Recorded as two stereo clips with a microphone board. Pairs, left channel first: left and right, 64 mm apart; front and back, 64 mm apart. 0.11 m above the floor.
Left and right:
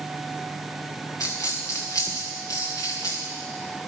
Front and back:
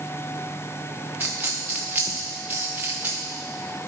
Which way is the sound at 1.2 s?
120° left.